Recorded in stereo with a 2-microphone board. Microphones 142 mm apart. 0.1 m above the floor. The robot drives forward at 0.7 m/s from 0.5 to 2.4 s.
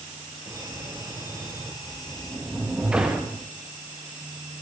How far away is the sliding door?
About 4.5 m.